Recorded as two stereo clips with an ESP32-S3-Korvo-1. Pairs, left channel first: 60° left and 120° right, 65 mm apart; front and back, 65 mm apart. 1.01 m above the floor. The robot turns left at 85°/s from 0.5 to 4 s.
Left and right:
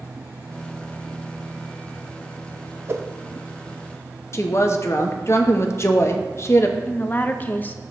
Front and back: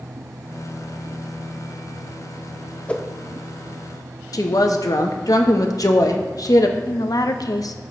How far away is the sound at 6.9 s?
About 0.6 m.